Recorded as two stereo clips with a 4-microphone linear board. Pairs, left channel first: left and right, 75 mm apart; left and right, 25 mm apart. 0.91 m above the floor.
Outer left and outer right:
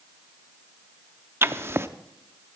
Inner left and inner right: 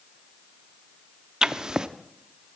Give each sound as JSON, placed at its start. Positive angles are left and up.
{"t": 1.4, "sound": "writing", "side_deg": -35, "distance_m": 0.6}